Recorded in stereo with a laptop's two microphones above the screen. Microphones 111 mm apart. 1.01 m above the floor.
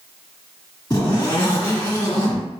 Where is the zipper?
40° left (ahead or behind), 1.8 m.